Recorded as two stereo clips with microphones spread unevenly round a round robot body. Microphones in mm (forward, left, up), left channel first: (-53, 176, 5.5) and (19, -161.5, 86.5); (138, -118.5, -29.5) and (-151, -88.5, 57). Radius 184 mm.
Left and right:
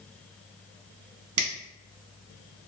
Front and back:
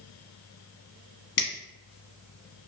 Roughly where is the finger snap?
Ahead right.